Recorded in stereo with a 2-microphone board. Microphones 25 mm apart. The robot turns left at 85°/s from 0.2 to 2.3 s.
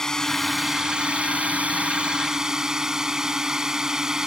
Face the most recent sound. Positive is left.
turn(degrees=-155)